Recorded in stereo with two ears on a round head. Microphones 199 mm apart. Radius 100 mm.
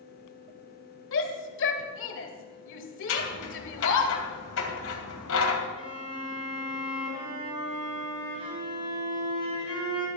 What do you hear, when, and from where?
1.1 s a shout: 60° left (ahead or behind), 2 m
3.1 s scissors: 65° left (ahead or behind), 2.5 m
5.8 s a violin: 35° right (ahead or behind), 6 m